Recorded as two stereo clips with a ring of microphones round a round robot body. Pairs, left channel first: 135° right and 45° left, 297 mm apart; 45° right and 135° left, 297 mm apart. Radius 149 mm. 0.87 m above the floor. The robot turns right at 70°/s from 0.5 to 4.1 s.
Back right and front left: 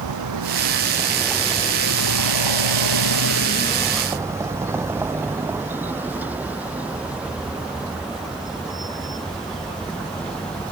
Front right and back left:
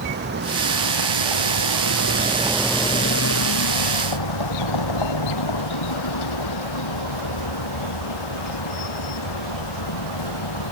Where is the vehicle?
80° left; by 10.7 s 50° right.